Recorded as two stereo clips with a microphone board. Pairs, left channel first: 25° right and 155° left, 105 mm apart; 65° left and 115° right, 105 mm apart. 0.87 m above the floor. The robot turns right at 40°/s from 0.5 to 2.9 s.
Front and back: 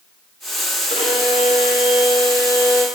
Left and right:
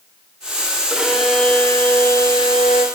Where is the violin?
35° right, 1.7 m; by 2.9 s 45° left, 1.7 m.